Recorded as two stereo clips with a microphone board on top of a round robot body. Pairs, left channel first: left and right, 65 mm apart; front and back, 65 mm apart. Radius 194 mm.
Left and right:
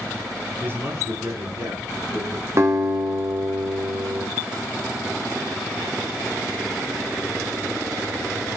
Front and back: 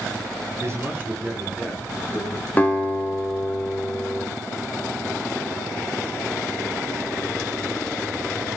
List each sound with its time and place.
0.6 s a man speaking: 145° right, 1.3 m; by 2.5 s 95° right, 3 m
2.6 s a guitar: 60° right, 1.8 m